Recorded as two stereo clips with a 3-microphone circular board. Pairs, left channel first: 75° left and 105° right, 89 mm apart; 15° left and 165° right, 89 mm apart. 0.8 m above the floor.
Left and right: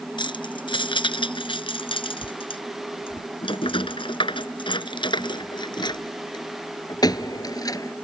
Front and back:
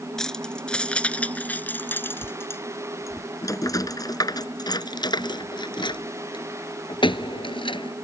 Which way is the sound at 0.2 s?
100° left.